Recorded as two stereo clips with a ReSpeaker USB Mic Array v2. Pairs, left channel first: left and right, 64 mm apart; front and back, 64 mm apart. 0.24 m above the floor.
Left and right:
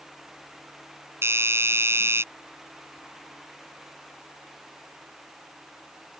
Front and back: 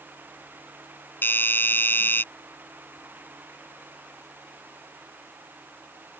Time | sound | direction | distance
1.2 | a doorbell | 50° right | ?